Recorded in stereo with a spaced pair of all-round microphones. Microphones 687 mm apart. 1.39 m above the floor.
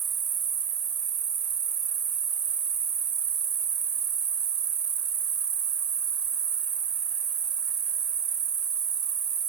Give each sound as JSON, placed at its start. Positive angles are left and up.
{"t": 0.0, "sound": "an insect", "side_deg": -70, "distance_m": 0.7}